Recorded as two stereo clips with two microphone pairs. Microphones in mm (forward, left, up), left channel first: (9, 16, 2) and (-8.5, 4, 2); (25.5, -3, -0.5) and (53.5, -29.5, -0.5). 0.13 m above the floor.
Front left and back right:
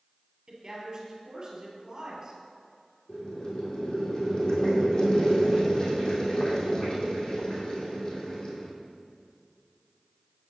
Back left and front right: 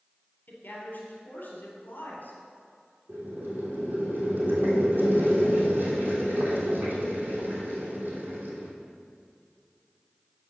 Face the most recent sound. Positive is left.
turn(degrees=-15)